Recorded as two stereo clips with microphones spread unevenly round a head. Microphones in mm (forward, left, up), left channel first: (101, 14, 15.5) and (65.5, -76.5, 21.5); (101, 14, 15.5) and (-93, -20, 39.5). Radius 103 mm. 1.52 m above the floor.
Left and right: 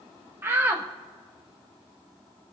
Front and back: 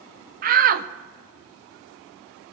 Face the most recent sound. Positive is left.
turn(degrees=180)